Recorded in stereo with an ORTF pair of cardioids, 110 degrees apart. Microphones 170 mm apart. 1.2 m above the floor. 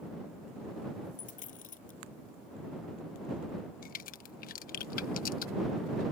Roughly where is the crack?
Ahead left.